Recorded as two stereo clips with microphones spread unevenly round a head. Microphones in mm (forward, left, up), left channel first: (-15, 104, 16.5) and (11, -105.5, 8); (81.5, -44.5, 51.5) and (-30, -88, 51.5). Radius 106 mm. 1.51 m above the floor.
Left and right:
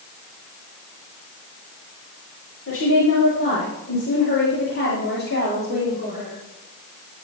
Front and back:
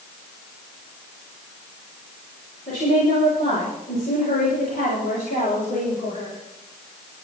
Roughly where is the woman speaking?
Ahead left.